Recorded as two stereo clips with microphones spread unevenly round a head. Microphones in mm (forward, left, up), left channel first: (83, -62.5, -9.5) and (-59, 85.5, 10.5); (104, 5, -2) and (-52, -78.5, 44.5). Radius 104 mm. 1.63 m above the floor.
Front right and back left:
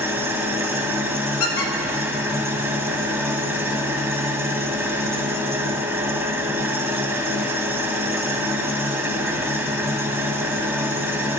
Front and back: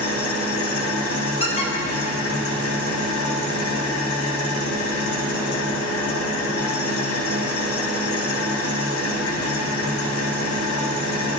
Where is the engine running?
60° left, 1.5 m.